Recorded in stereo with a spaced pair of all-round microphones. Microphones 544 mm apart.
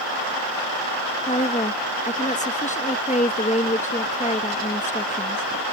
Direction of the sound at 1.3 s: 15° left (ahead or behind).